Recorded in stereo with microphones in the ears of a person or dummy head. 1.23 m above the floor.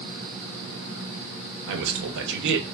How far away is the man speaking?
About 0.7 m.